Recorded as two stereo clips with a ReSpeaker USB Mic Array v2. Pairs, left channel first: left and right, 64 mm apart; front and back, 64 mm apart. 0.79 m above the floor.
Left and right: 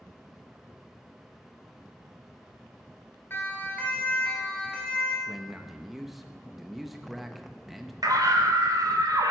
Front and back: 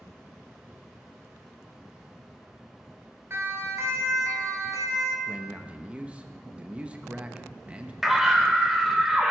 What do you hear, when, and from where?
3.3 s a siren: 140° left, 2.5 m; by 5.2 s 170° left, 4 m
5.3 s a man speaking: 175° right, 0.9 m
8.0 s a scream: 95° right, 2.5 m